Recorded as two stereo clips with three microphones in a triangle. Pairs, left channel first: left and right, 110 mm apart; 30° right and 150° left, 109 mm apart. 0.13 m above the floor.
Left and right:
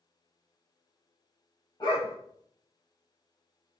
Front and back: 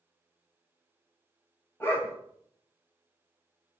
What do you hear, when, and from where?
1.8 s a dog barking: 40° left, 1.4 m